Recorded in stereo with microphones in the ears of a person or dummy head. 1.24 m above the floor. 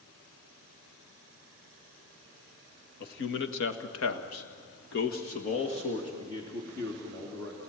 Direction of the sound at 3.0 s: 60° left (ahead or behind).